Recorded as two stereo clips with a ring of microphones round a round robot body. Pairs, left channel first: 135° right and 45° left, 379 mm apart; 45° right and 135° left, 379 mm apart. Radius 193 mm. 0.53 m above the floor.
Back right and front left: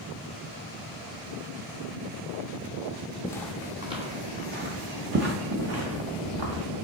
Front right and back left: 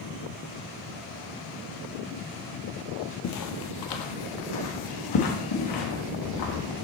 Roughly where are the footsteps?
Ahead right.